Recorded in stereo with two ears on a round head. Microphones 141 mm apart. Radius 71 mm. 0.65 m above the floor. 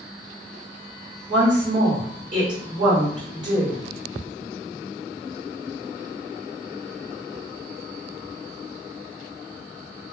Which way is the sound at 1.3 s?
25° right (ahead or behind).